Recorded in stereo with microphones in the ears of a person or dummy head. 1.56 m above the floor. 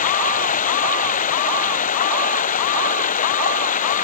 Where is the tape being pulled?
No tape being pulled in this recording.